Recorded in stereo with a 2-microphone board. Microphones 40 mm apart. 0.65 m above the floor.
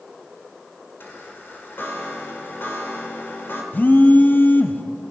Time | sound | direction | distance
1.0 | a chime | 60° left (ahead or behind) | 1.9 m
3.7 | a phone buzzing | 50° left (ahead or behind) | 0.7 m